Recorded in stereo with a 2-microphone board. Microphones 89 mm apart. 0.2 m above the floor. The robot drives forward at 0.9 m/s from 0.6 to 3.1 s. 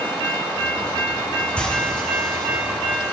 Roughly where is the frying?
Centre.